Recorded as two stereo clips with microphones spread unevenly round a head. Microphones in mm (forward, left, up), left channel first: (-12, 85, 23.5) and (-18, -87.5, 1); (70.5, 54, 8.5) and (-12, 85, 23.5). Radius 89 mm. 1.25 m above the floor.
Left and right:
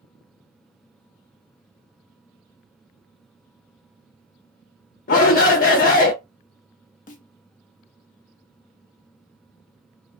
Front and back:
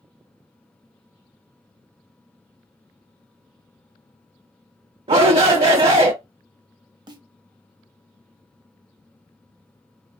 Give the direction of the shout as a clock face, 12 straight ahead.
8 o'clock.